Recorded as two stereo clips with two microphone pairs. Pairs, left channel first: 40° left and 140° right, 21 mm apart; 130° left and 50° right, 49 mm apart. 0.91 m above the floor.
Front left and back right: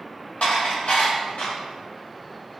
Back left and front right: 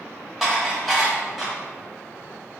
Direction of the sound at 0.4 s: 40° left.